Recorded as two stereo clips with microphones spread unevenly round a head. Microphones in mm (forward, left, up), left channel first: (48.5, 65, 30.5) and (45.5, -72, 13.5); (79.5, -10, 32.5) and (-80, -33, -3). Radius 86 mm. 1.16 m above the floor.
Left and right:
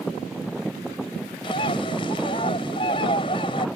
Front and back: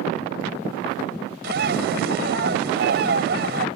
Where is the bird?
150° left.